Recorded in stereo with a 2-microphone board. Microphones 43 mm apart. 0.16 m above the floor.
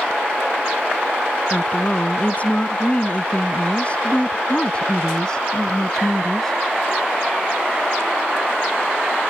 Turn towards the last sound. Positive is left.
turn(degrees=5)  # may be behind; listen again after turning